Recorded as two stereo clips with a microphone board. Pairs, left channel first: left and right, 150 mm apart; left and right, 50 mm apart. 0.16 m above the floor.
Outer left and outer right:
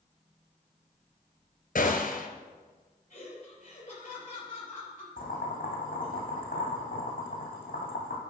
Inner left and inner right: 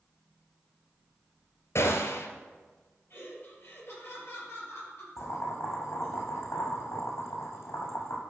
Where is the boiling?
65° left (ahead or behind), 3 m.